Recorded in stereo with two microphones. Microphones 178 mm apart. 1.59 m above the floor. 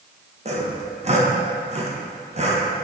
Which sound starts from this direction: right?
Sawing, at 0.5 s.